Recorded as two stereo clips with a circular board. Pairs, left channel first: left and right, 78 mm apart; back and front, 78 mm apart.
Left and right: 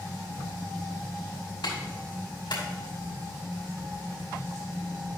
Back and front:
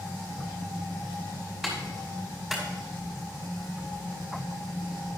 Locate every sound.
1.6 s a clap: 85° left, 5 m